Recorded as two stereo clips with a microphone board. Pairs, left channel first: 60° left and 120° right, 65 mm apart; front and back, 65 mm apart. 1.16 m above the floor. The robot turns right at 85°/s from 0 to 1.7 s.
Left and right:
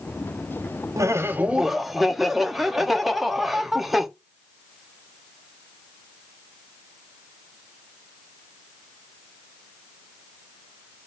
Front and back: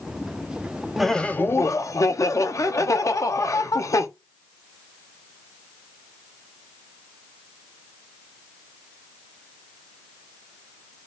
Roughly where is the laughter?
Right.